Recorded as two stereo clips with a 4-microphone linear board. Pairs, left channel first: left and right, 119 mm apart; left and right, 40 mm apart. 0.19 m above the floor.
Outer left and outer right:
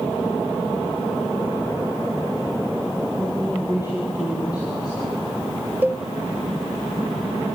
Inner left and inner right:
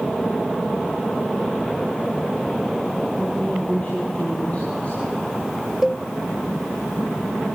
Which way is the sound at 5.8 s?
15° right (ahead or behind).